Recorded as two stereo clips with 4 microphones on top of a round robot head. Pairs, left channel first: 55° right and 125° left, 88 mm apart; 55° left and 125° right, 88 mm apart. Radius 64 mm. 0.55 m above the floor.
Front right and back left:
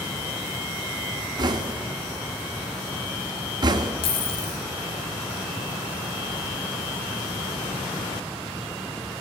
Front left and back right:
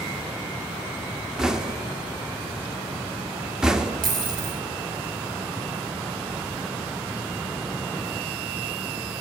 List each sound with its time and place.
1.4 s knocking: 150° left, 0.8 m
4.0 s a dropped coin: 85° right, 3 m